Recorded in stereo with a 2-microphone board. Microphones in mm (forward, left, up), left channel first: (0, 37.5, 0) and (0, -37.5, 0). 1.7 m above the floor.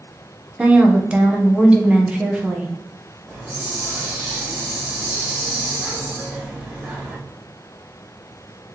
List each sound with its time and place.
0.6 s a woman speaking: 15° right (ahead or behind), 0.8 m
3.3 s a hiss: 15° right (ahead or behind), 1.5 m